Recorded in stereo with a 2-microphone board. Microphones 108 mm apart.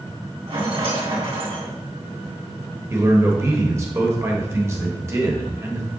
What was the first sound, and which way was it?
A rattle, 60° right (ahead or behind).